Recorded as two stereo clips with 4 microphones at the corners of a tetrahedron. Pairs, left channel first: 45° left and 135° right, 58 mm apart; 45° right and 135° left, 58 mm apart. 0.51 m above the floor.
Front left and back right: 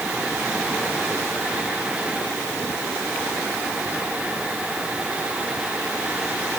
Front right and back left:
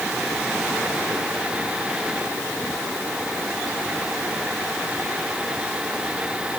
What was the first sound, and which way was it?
Only background noise.